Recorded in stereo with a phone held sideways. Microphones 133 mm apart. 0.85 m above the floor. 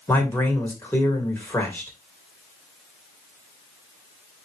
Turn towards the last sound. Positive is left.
turn(degrees=15)  # may be behind; listen again after turning